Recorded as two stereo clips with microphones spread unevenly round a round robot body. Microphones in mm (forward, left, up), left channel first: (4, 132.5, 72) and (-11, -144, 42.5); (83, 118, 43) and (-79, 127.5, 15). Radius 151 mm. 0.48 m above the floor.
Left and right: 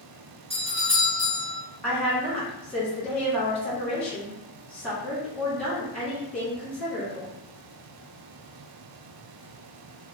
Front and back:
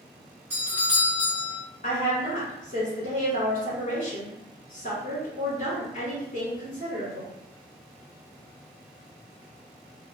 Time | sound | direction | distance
0.5 | a doorbell | 130° right | 1.3 m
1.8 | a woman speaking | 5° right | 1.5 m